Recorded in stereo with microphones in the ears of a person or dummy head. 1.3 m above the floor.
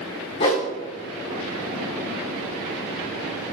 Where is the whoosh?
20° left (ahead or behind), 0.9 m.